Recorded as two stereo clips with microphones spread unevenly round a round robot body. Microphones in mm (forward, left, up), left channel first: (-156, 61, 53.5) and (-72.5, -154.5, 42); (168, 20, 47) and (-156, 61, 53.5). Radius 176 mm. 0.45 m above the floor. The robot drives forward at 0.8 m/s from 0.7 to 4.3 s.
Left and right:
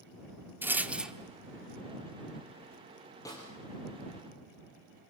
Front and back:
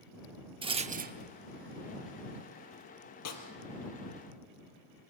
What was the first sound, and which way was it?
A rattle, 135° right.